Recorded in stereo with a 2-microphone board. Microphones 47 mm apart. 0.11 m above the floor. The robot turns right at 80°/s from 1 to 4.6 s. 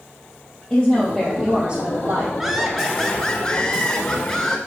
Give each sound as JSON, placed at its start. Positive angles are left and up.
{"t": 0.7, "sound": "a woman speaking", "azimuth_deg": 155, "distance_m": 2.5}
{"t": 2.4, "sound": "laughter", "side_deg": -10, "distance_m": 1.2}